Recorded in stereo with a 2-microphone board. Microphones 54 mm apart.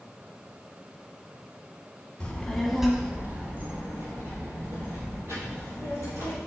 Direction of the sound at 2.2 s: 25° left (ahead or behind).